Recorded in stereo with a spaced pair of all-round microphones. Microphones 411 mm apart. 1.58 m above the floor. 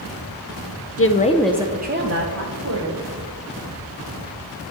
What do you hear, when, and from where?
1.0 s a woman speaking: 35° left (ahead or behind), 0.6 m; by 3.0 s 45° right (ahead or behind), 1.4 m